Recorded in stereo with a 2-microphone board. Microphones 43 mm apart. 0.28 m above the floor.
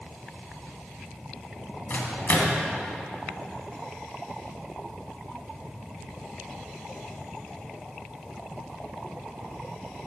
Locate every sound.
1.9 s a microwave: 50° left (ahead or behind), 2.0 m